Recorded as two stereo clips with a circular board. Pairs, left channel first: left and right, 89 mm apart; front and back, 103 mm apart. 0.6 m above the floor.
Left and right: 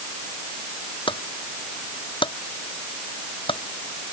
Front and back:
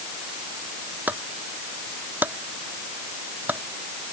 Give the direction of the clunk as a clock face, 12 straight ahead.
8 o'clock.